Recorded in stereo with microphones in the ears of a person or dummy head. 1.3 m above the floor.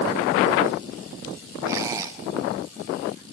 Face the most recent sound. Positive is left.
turn(degrees=-20)  # may be behind; listen again after turning